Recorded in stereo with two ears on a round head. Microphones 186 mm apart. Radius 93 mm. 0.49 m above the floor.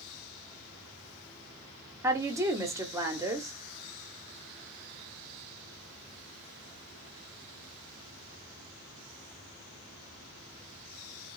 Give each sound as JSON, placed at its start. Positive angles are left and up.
{"t": 2.0, "sound": "a woman speaking", "side_deg": -15, "distance_m": 0.8}